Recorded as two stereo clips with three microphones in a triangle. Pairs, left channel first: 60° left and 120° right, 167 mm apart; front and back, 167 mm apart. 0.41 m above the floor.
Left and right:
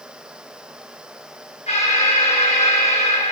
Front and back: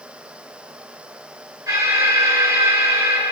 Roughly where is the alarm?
Left.